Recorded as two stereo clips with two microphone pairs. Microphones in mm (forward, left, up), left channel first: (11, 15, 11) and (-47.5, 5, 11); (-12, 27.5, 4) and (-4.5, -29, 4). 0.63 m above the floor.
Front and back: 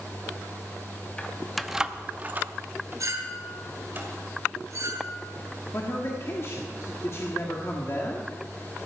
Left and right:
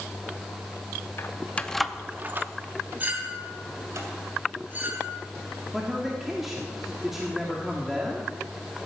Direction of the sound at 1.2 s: 75° left.